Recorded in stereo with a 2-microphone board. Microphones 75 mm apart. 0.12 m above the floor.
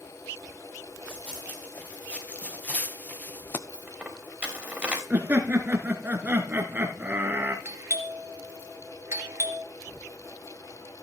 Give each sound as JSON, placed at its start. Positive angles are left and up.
{"t": 1.1, "sound": "running footsteps", "side_deg": 20, "distance_m": 4.0}
{"t": 3.7, "sound": "a dropped coin", "side_deg": -15, "distance_m": 3.5}
{"t": 5.1, "sound": "laughter", "side_deg": -25, "distance_m": 1.5}
{"t": 7.7, "sound": "a doorbell", "side_deg": -35, "distance_m": 2.5}